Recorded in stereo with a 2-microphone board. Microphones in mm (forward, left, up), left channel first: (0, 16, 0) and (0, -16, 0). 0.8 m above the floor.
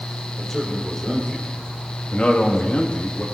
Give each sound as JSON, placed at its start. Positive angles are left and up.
{"t": 0.4, "sound": "a man speaking", "side_deg": 10, "distance_m": 3.5}